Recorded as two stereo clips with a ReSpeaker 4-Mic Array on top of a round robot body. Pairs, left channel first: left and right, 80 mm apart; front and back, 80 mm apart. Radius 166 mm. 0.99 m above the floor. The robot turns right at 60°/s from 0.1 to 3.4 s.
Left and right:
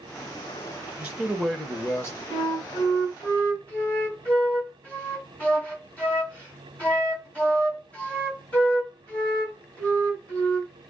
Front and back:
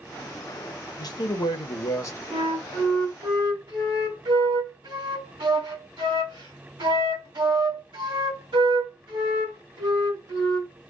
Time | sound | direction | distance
1.0 | a man speaking | 20° right | 1.2 m
2.3 | a flute | 95° left | 2.5 m